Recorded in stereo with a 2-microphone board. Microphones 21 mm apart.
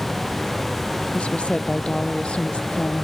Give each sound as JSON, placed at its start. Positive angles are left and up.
{"t": 1.1, "sound": "a woman speaking", "side_deg": 70}